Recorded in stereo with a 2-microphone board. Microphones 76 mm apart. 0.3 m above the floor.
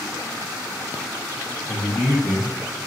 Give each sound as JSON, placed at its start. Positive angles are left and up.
{"t": 1.7, "sound": "a man speaking", "side_deg": -10, "distance_m": 1.7}